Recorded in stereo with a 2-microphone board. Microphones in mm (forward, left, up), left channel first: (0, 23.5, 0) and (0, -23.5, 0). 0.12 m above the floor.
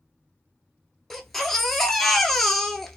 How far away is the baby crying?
About 0.6 m.